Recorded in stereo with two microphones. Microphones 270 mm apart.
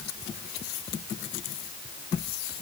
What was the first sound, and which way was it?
Only background noise.